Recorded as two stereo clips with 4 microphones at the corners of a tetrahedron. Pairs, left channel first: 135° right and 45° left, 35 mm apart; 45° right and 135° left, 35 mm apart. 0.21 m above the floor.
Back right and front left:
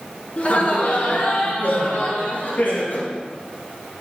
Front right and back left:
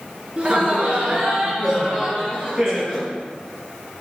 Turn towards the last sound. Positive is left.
turn(degrees=-160)